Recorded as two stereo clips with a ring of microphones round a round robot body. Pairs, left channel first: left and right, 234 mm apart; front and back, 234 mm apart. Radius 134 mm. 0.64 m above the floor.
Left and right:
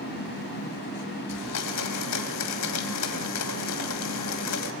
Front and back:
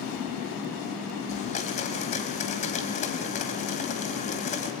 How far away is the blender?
About 1.6 m.